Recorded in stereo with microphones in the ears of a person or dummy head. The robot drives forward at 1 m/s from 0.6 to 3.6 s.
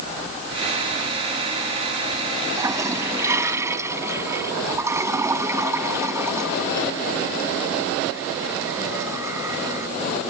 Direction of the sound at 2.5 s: 15° right (ahead or behind).